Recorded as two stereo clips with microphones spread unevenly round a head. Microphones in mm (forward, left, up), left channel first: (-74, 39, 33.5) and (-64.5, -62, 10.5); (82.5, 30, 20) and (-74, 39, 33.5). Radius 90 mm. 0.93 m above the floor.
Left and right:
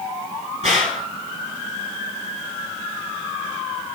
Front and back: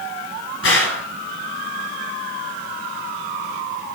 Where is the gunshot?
20° right, 2.5 m.